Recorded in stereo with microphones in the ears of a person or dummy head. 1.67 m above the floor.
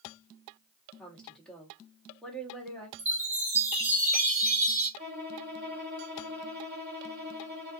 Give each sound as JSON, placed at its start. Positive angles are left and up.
{"t": 1.0, "sound": "a woman speaking", "side_deg": 5, "distance_m": 1.2}
{"t": 3.0, "sound": "a chime", "side_deg": -15, "distance_m": 1.3}
{"t": 5.0, "sound": "a violin", "side_deg": -45, "distance_m": 1.1}